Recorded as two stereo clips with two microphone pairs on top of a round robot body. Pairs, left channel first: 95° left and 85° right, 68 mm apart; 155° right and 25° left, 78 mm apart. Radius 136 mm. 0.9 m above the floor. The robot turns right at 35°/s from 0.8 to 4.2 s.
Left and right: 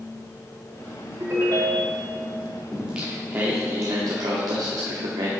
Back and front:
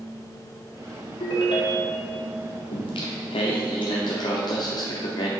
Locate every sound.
1.2 s a ringtone: 140° right, 0.8 m; by 2.1 s 110° right, 0.8 m
2.7 s singing: 165° right, 0.7 m; by 5.3 s 115° right, 0.7 m